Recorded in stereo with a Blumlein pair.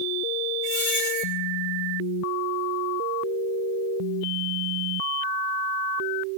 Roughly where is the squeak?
Ahead left.